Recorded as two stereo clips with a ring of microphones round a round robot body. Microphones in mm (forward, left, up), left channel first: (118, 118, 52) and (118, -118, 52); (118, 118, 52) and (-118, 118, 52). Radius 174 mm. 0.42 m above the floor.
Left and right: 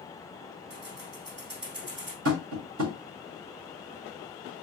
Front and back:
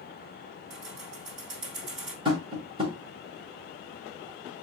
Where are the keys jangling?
140° right, 1.9 m.